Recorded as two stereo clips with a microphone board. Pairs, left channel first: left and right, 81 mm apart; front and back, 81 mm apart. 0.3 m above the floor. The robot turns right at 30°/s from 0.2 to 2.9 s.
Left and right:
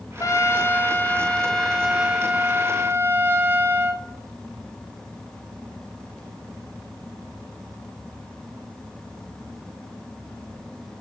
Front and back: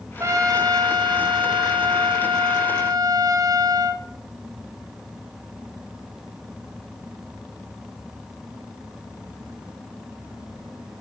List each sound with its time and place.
0.2 s a trumpet: 135° left, 0.6 m; by 4.0 s 145° right, 0.6 m